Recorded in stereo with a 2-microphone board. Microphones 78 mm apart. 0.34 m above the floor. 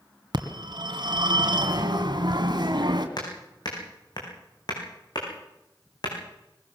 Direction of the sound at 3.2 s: 60° left (ahead or behind).